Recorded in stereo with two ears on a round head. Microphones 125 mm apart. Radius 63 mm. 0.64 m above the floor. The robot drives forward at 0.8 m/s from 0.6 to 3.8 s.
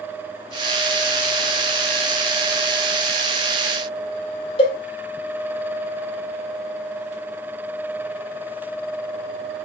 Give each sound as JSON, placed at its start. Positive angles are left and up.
{"t": 4.6, "sound": "a cowbell", "side_deg": 45, "distance_m": 1.6}